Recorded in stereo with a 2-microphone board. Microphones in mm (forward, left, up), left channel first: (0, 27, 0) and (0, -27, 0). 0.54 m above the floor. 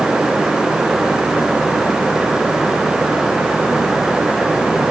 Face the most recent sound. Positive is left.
No sound to turn to.